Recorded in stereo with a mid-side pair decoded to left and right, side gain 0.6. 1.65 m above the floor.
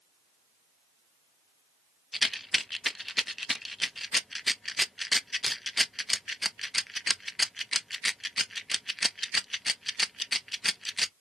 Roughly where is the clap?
No clap in this recording.